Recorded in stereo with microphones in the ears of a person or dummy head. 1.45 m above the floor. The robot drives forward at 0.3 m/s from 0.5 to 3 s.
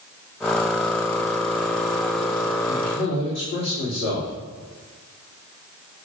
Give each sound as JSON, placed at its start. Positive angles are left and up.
{"t": 2.7, "sound": "a man speaking", "side_deg": 85, "distance_m": 3.0}